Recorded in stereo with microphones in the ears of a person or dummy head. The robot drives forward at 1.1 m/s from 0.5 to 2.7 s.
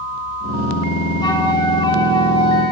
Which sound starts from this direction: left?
A flute, at 1.2 s.